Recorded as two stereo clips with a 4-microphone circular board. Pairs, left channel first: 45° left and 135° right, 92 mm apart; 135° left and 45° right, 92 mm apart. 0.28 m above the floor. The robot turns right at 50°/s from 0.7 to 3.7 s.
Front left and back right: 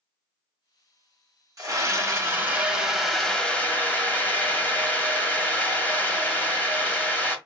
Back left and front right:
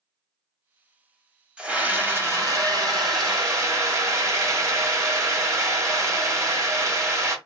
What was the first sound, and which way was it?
A scream, 120° right.